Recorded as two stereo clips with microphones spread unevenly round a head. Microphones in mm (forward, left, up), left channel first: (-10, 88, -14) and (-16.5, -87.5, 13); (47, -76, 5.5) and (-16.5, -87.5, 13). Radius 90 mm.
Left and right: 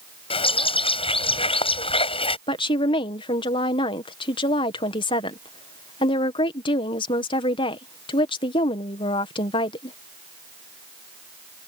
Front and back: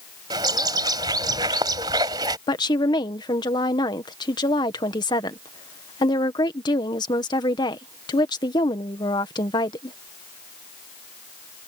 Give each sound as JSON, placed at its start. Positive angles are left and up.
{"t": 0.3, "sound": "a bird", "azimuth_deg": 150}
{"t": 2.5, "sound": "a woman speaking", "azimuth_deg": 25}